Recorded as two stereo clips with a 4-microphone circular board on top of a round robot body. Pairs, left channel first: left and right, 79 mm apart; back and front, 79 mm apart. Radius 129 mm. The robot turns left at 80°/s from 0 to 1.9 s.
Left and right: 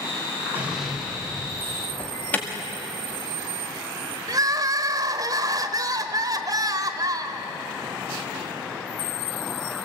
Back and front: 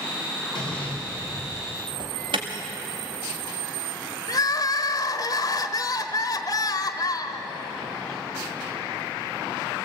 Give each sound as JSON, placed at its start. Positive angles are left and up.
{"t": 0.6, "sound": "an explosion", "azimuth_deg": -160, "distance_m": 5.0}
{"t": 2.0, "sound": "an alarm", "azimuth_deg": 20, "distance_m": 1.9}
{"t": 4.3, "sound": "crying", "azimuth_deg": -135, "distance_m": 1.2}